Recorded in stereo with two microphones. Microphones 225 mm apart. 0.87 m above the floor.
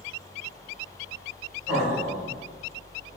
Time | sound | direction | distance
1.7 | laughter | 5° right (ahead or behind) | 1.8 m